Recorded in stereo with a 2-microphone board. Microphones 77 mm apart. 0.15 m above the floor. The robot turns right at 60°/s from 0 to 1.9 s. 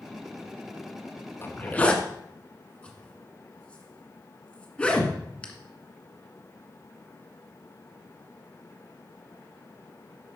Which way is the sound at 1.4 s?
30° left (ahead or behind).